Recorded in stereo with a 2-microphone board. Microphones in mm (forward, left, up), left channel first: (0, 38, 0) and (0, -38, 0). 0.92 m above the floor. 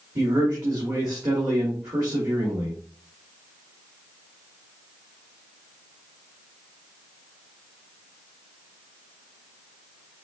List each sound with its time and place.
0.1 s a man speaking: 65° right (ahead or behind), 1.7 m